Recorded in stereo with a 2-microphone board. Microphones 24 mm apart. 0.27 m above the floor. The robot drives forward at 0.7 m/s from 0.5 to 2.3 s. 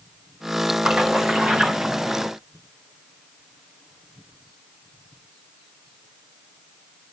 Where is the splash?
55° right (ahead or behind), 2 m; by 2.3 s 60° right (ahead or behind), 2 m.